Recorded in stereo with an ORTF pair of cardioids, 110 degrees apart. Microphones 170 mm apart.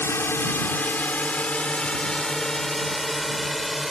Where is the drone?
15° left; by 3.9 s straight ahead.